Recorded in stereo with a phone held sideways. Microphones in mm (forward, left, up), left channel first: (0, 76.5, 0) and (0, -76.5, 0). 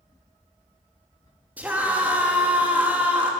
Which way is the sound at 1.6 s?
10° right (ahead or behind).